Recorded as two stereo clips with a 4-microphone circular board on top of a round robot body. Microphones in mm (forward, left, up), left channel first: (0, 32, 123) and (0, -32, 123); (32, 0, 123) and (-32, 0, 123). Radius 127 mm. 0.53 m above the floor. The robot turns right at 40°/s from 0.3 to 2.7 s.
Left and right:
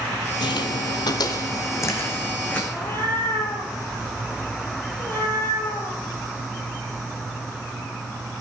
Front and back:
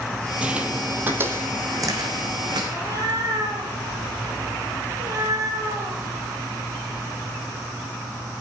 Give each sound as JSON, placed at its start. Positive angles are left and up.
{"t": 0.4, "sound": "footsteps", "azimuth_deg": 105, "distance_m": 1.1}
{"t": 2.7, "sound": "a cat meowing", "azimuth_deg": 150, "distance_m": 8.0}